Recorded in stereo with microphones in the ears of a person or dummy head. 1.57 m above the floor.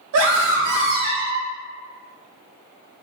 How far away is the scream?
About 1.2 m.